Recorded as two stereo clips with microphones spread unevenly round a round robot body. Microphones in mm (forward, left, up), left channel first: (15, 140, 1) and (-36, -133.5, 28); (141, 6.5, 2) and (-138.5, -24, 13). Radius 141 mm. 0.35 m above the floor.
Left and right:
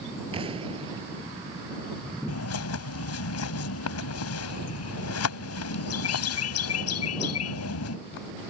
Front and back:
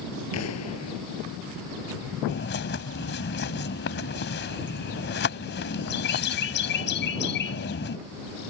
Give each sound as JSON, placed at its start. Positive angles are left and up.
{"t": 0.3, "sound": "an explosion", "azimuth_deg": -30}
{"t": 2.3, "sound": "a bird", "azimuth_deg": 55}